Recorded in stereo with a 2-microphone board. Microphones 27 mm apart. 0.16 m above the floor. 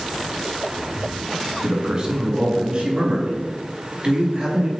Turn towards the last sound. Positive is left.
turn(degrees=-40)  # may be behind; listen again after turning